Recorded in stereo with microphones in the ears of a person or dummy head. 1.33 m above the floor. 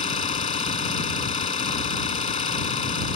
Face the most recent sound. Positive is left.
turn(degrees=35)  # may be behind; listen again after turning